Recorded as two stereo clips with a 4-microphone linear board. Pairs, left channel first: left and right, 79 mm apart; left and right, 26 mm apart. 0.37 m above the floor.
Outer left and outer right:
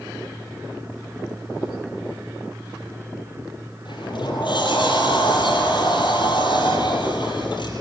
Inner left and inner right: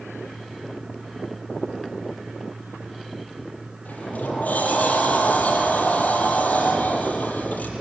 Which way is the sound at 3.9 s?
80° left.